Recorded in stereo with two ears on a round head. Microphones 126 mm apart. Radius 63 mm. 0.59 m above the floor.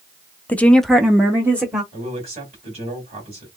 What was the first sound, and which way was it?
A woman speaking, 10° left (ahead or behind).